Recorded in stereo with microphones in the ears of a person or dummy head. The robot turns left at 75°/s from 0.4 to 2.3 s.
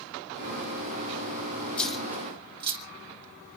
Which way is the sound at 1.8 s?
10° left (ahead or behind).